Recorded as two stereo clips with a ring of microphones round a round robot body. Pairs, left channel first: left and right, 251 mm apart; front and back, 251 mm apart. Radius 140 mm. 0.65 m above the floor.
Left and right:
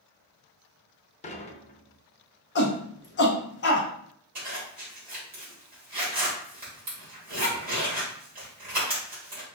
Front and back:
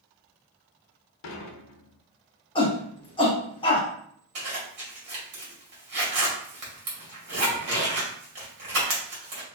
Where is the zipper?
150° right, 2 m.